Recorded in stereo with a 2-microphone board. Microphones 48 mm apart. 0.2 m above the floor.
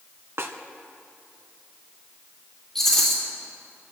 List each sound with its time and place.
0.4 s a snare drum: 60° right (ahead or behind), 1.3 m
2.8 s a rattle: 10° left (ahead or behind), 5 m